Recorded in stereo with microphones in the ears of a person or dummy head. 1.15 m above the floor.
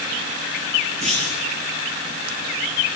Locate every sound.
1.0 s a clunk: 35° right (ahead or behind), 9 m